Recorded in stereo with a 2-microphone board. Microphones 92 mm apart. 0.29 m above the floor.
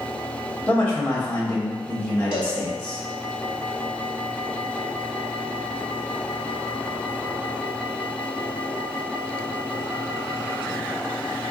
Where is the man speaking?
15° left (ahead or behind), 1.0 m.